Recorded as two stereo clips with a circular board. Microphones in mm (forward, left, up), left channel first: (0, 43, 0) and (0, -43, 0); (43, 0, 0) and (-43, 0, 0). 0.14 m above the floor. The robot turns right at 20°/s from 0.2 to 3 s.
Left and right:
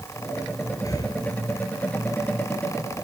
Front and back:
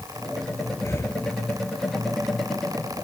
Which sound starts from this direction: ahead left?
Breathing, at 0.8 s.